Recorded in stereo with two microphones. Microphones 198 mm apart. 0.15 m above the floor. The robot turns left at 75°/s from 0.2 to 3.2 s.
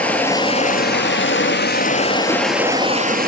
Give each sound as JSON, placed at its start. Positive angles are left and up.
{"t": 0.0, "sound": "running water", "azimuth_deg": 170, "distance_m": 1.1}